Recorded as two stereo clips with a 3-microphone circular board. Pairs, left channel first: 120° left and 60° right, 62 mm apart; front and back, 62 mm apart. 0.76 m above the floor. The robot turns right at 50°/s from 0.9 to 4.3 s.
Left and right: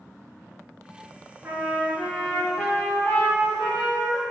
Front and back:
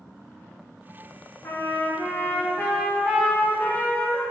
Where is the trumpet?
5° right, 1.0 m; by 4.2 s 135° left, 1.0 m.